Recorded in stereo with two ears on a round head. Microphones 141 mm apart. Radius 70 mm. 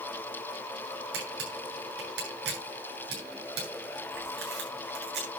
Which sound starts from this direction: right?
A camera shutter, at 1.1 s.